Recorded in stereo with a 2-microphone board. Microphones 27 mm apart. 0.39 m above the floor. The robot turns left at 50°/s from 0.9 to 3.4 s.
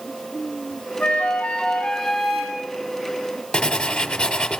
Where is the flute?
65° left, 2.5 m; by 2.6 s 15° right, 2.5 m.